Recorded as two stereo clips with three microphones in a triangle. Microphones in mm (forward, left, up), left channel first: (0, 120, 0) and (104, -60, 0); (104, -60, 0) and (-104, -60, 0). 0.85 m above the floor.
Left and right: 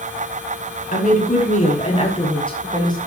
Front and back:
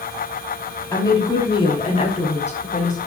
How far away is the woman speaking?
About 5.5 m.